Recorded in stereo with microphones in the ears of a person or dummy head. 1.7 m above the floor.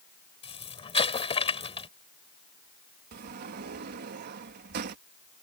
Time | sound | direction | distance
0.4 | an explosion | 25° left (ahead or behind) | ?
3.1 | a sliding door | 45° right (ahead or behind) | ?